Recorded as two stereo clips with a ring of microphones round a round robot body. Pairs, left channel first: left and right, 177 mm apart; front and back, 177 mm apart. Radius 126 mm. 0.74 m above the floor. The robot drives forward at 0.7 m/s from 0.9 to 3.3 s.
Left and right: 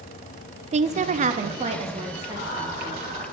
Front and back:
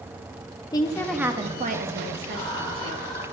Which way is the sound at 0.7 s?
60° right.